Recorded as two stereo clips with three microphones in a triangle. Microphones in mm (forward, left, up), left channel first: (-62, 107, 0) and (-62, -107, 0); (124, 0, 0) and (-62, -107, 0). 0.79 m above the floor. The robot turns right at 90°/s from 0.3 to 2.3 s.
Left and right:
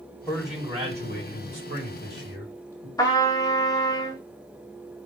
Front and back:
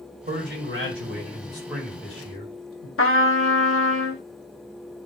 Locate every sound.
0.3 s a man speaking: 170° left, 1.9 m; by 2.9 s 10° right, 1.9 m
3.0 s a trumpet: 20° left, 0.9 m